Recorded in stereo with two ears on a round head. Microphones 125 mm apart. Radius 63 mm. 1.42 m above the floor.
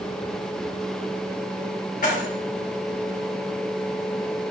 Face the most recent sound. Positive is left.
turn(degrees=60)  # may be behind; listen again after turning